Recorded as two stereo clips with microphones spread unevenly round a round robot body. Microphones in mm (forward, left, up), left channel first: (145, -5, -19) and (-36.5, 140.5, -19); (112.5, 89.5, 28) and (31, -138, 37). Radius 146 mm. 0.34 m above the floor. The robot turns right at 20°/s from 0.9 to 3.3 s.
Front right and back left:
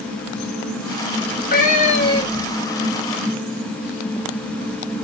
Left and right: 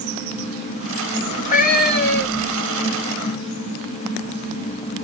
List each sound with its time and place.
1.2 s a cat meowing: 5° left, 2 m; by 2.6 s 35° left, 2 m